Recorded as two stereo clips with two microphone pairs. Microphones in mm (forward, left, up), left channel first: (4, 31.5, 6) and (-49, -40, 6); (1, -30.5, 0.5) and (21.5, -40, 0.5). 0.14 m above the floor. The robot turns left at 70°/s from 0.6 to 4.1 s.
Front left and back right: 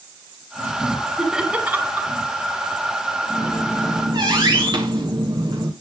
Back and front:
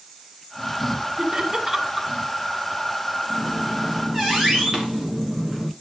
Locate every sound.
1.2 s laughter: 45° right, 1.8 m; by 2.1 s 110° right, 1.8 m
3.3 s a squeak: 35° right, 3 m; by 5.7 s 95° right, 3 m